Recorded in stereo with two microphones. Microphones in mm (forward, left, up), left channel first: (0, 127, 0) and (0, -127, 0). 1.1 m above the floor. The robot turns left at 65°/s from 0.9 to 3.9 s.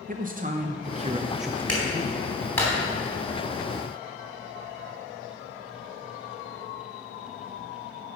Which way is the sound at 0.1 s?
145° right.